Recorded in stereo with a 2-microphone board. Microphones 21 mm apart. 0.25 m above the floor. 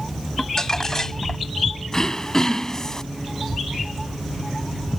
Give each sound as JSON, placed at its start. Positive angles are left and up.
{"t": 0.4, "sound": "crumpling", "side_deg": 25}
{"t": 1.9, "sound": "throat clearing", "side_deg": 30}